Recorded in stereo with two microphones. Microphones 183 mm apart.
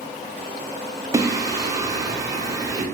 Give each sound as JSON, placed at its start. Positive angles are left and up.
{"t": 1.1, "sound": "singing", "side_deg": -20, "distance_m": 0.6}